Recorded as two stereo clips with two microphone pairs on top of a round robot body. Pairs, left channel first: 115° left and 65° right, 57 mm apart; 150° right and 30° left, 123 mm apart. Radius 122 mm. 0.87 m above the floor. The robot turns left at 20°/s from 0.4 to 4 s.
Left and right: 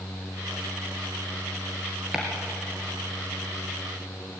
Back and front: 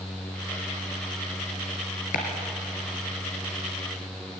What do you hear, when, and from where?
2.1 s chopping: 150° right, 3 m; by 2.2 s 155° right, 3 m